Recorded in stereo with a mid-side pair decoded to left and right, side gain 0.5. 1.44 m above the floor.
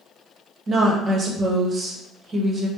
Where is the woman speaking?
45° right, 1.0 m.